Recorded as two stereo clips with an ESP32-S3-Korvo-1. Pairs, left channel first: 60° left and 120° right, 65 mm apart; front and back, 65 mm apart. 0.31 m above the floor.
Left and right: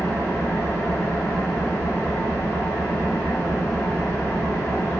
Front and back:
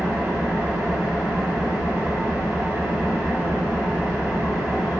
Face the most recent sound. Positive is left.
turn(degrees=115)